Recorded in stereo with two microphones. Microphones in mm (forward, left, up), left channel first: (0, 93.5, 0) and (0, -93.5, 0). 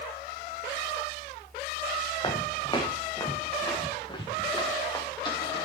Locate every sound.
2.2 s footsteps: 25° left (ahead or behind), 3 m